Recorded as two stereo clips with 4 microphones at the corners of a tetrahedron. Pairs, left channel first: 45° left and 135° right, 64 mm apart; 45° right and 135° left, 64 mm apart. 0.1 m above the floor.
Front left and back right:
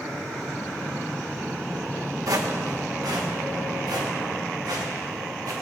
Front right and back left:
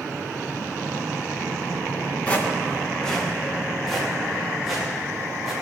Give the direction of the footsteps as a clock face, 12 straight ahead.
4 o'clock.